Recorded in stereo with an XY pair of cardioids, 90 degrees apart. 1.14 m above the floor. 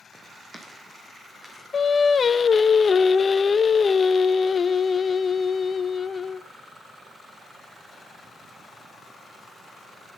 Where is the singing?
40° left, 0.8 m.